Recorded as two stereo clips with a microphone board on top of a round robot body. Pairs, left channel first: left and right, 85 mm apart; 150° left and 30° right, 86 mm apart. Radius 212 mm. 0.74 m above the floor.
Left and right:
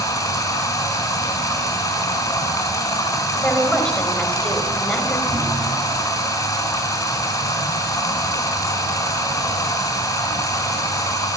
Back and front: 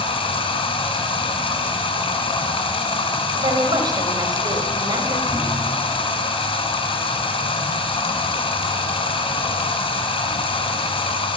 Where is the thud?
110° right, 0.8 m.